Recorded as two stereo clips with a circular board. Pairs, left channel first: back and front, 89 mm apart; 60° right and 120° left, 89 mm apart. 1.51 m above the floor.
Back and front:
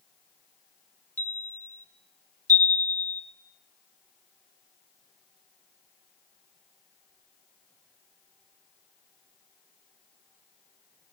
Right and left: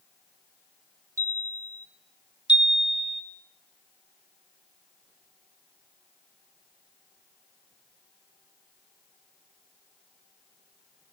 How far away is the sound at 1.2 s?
About 0.8 m.